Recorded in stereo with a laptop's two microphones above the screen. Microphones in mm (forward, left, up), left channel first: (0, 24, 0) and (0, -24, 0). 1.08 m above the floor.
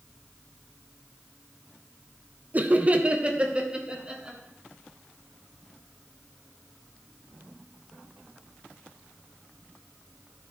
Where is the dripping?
I don't hear dripping.